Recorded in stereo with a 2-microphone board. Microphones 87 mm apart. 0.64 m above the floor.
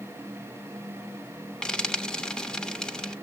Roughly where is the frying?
Centre.